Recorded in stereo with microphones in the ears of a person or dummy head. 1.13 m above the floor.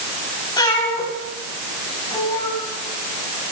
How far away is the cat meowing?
About 4 m.